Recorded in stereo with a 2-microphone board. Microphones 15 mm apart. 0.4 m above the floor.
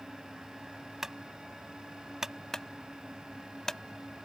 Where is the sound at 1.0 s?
25° right (ahead or behind).